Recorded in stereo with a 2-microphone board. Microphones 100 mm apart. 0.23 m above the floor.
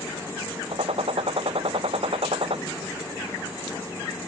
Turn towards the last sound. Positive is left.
turn(degrees=-65)  # may be behind; listen again after turning